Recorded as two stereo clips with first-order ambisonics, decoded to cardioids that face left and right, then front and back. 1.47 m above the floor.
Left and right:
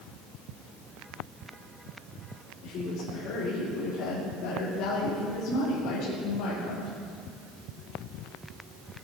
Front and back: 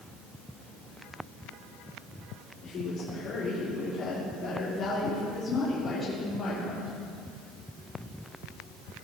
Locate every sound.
2.6 s a woman speaking: 45° left, 3.5 m; by 6.9 s 80° left, 2.5 m